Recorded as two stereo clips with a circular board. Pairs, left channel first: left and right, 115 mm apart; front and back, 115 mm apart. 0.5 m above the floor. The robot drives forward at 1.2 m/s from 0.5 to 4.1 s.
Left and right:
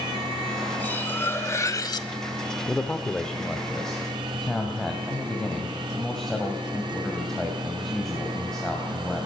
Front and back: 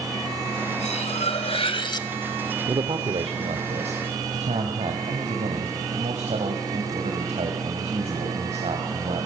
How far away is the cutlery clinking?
About 2 m.